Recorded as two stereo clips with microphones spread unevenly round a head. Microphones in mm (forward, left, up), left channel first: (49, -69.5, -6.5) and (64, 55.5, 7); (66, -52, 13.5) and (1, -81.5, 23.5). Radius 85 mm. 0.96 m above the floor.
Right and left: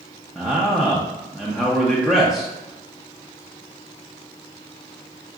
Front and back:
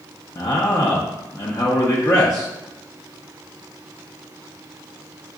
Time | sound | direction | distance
0.3 | a man speaking | 10° right | 0.7 m